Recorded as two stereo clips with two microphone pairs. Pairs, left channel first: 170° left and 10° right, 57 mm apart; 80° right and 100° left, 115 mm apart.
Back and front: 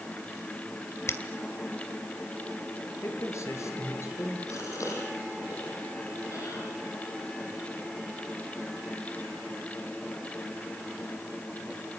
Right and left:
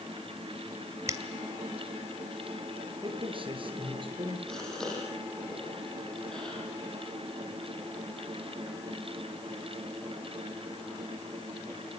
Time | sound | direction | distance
1.1 | a finger snap | 155° left | 2 m
3.0 | a man speaking | 140° left | 6.5 m
4.5 | a gasp | 165° right | 9 m